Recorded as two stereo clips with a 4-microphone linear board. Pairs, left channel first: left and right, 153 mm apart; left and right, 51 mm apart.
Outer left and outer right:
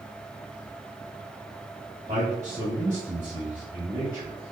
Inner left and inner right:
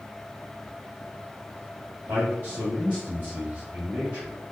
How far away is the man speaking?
About 1.6 m.